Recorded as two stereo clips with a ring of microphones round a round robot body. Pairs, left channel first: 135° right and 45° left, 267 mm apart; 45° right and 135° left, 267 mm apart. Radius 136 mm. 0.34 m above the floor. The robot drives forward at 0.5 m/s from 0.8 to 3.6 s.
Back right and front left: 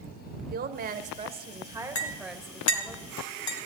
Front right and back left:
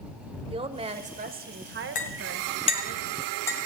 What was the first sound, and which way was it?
A woman speaking, 80° left.